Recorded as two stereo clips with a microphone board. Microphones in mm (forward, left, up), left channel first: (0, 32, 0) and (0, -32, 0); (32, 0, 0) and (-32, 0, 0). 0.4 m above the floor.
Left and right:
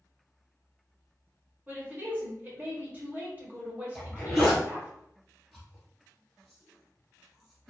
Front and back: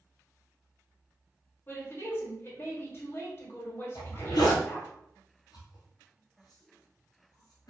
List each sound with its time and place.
1.7 s a woman speaking: 40° right, 1.1 m
4.0 s a zipper: straight ahead, 1.2 m